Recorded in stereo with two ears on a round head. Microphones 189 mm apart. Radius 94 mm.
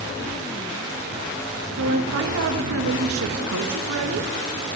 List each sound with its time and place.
1.8 s a woman speaking: 75° right (ahead or behind), 1.3 m